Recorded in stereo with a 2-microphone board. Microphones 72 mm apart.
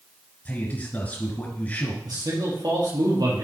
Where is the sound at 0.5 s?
25° left (ahead or behind), 1.8 m.